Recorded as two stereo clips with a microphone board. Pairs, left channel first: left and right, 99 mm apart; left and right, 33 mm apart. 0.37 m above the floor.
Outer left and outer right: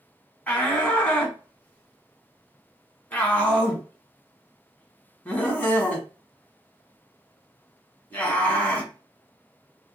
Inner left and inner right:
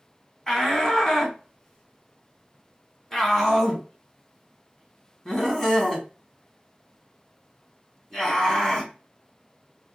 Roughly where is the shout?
Centre.